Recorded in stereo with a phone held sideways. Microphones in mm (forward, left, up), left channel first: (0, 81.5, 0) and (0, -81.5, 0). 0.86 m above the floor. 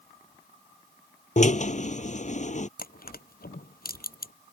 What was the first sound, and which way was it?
A drill, 50° left (ahead or behind).